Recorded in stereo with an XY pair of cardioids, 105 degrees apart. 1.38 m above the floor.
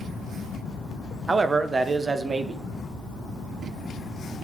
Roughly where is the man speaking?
Ahead right.